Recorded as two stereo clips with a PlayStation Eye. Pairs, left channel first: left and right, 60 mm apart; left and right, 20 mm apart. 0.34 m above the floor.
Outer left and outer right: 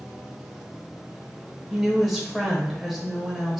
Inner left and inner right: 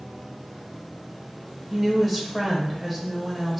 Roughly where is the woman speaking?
Centre.